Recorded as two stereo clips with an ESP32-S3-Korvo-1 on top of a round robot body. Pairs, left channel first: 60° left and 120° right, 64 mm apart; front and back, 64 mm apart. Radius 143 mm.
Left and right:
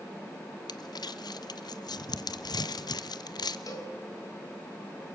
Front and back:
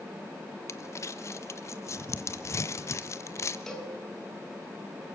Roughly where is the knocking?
No knocking in this recording.